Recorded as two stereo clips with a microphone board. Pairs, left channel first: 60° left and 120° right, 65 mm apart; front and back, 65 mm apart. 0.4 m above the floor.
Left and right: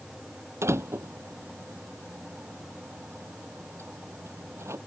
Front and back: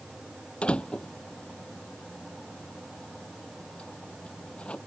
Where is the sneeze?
I don't hear a sneeze.